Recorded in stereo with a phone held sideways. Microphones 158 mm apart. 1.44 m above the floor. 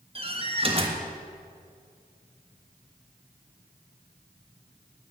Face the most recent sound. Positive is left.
turn(degrees=-35)  # may be behind; listen again after turning